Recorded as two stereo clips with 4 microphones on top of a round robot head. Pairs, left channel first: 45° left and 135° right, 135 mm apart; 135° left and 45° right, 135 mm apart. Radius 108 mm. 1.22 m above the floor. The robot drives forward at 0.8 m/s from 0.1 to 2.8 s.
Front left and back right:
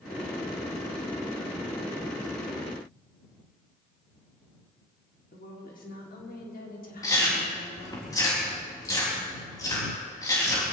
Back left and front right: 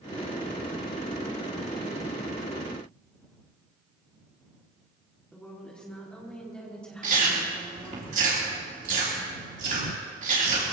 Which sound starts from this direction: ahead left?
A woman speaking, at 5.3 s.